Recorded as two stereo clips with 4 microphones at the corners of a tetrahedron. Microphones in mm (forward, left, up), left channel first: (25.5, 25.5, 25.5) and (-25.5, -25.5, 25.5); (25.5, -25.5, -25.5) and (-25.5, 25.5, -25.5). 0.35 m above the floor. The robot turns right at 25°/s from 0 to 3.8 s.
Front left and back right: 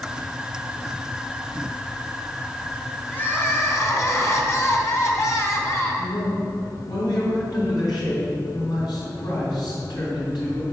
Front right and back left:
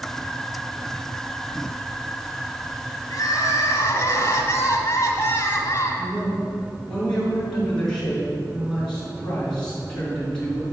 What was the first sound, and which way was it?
Crying, 15° right.